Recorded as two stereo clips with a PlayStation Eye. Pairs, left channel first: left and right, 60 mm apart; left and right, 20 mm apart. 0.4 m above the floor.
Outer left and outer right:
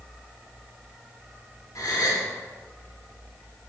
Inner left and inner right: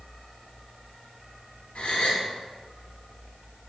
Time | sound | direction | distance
1.8 | a gasp | 75° left (ahead or behind) | 1.3 m